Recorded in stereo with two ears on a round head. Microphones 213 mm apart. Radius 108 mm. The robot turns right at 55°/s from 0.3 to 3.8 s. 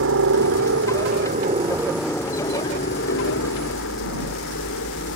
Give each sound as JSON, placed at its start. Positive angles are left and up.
{"t": 0.0, "sound": "a helicopter", "azimuth_deg": -95}